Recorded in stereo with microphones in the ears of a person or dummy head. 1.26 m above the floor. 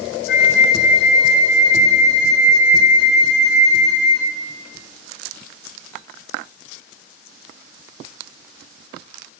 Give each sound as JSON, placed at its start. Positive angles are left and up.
{"t": 0.3, "sound": "a flute", "side_deg": 65, "distance_m": 1.0}